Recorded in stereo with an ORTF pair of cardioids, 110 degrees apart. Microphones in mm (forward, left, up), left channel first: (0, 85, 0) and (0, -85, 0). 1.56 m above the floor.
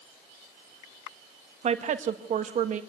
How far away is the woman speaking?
About 1.9 m.